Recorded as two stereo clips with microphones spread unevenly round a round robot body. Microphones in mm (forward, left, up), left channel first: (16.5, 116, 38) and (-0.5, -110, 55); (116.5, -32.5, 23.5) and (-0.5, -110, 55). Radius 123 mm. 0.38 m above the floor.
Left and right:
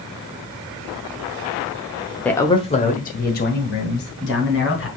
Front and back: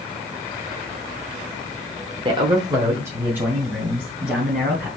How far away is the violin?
I don't hear a violin.